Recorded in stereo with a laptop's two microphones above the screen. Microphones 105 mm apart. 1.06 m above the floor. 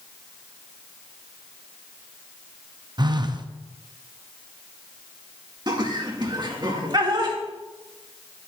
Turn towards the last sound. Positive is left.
turn(degrees=-40)  # may be behind; listen again after turning